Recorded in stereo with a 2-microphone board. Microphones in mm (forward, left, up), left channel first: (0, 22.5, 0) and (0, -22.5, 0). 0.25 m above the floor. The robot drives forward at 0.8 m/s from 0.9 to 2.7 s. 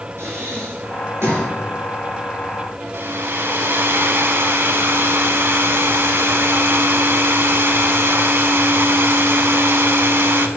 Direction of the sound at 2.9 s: 60° right (ahead or behind).